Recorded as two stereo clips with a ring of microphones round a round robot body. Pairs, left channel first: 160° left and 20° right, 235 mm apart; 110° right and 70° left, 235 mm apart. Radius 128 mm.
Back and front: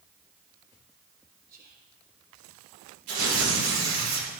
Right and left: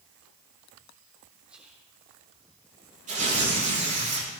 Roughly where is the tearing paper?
Ahead.